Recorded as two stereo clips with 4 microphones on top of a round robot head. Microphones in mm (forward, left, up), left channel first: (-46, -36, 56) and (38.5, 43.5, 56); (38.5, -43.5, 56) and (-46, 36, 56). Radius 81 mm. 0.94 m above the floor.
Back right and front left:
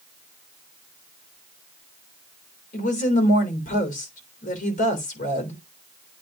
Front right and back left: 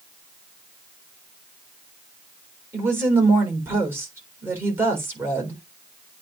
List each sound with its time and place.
2.7 s a woman speaking: 150° right, 3.5 m